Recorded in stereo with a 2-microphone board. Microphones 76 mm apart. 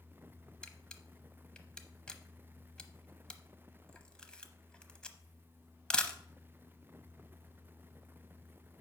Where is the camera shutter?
10° left (ahead or behind), 0.8 m.